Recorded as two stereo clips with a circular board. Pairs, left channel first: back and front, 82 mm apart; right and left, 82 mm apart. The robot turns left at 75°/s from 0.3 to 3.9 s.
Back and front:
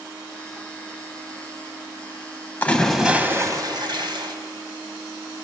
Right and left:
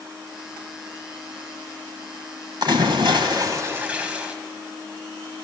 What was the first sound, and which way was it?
A splash, 115° left.